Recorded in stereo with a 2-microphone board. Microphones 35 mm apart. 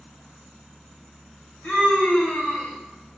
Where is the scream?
35° left (ahead or behind), 2.5 m.